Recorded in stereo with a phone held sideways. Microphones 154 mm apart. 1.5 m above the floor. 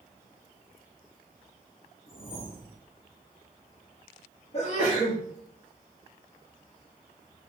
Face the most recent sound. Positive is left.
turn(degrees=45)  # may be behind; listen again after turning